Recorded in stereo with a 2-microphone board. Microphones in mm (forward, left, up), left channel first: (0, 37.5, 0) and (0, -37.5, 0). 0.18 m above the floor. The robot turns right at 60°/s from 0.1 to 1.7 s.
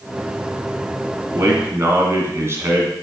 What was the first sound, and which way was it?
A man speaking, 40° right (ahead or behind).